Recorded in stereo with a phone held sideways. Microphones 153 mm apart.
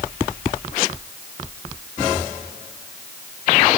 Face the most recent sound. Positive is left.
No sound to turn to.